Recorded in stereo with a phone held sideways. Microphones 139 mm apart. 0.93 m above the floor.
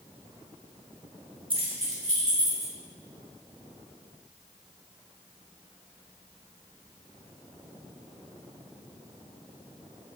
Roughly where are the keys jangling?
Right.